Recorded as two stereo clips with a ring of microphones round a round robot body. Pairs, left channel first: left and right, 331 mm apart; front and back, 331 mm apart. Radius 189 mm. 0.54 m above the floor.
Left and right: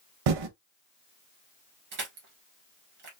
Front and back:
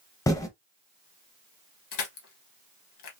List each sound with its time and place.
0.3 s typing on a keyboard: 80° right, 0.5 m
1.9 s crushing: 30° right, 1.5 m